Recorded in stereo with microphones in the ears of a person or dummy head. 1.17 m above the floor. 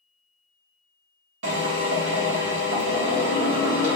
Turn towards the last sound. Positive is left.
turn(degrees=-65)  # may be behind; listen again after turning